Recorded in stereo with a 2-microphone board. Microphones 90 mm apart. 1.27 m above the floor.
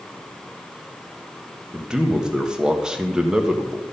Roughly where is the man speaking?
Centre.